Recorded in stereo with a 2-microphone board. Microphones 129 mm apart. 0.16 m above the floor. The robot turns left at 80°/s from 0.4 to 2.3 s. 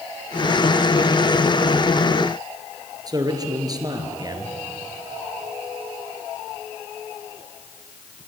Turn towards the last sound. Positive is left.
turn(degrees=-30)  # may be behind; listen again after turning